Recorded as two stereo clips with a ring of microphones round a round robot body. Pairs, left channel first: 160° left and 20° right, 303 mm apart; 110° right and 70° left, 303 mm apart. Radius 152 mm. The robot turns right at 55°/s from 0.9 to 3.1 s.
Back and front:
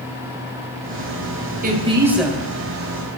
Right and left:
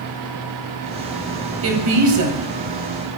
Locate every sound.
1.6 s a woman speaking: 35° left, 2.5 m; by 2.4 s 80° left, 2.5 m